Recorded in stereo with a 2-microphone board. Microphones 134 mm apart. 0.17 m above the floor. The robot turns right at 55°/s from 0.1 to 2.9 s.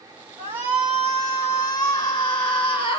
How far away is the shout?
About 2 m.